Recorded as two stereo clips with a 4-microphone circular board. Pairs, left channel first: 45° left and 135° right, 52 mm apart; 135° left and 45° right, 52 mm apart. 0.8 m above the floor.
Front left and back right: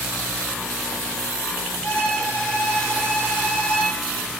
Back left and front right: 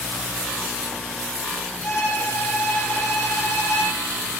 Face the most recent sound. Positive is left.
turn(degrees=115)